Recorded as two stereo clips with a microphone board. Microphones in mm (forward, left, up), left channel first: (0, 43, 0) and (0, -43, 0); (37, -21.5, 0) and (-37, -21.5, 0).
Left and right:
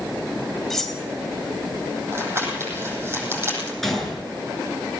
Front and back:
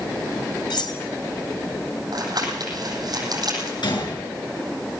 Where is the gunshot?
Straight ahead, 7.5 m.